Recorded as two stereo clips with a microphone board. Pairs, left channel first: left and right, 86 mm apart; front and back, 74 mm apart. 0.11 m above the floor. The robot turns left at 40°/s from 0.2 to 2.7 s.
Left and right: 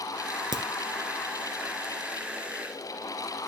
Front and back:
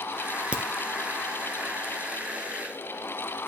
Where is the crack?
105° right, 1.0 m; by 0.6 s 110° right, 1.0 m.